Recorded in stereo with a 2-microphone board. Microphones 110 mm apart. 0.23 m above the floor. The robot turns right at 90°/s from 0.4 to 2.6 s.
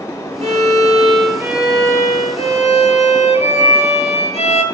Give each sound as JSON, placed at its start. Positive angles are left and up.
{"t": 0.4, "sound": "a violin", "azimuth_deg": -110, "distance_m": 1.5}